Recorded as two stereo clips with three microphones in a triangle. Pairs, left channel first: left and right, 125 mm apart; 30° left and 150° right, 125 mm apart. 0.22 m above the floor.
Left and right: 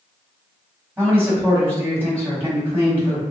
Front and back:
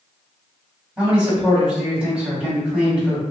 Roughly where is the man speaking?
Right.